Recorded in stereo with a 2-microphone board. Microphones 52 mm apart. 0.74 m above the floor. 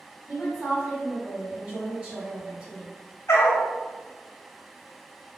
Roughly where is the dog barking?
Left.